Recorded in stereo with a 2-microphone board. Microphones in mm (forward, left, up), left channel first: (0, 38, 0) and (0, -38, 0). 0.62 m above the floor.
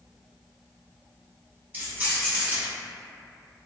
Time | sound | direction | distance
1.7 | keys jangling | 25° right (ahead or behind) | 1.1 m